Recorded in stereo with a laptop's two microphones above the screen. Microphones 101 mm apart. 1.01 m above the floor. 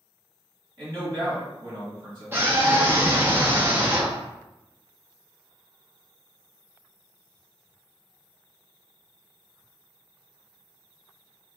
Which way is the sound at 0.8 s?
50° right (ahead or behind).